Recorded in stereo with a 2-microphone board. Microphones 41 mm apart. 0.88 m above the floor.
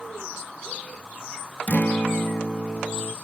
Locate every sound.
1.7 s a guitar: 45° left (ahead or behind), 0.6 m